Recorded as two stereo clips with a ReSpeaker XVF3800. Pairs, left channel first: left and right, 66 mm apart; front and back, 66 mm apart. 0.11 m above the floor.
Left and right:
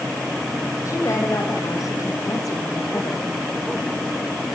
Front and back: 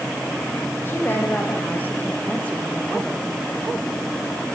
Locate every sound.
0.8 s a woman speaking: 55° left, 6 m; by 3.2 s 85° left, 3 m